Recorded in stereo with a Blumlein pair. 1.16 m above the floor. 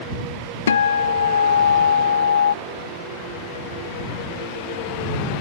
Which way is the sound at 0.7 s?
70° left.